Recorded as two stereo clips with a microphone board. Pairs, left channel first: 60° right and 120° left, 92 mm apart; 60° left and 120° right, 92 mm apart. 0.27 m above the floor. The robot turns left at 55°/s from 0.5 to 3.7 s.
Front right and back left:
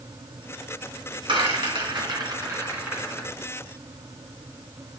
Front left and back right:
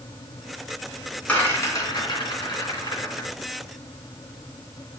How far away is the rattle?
About 3 m.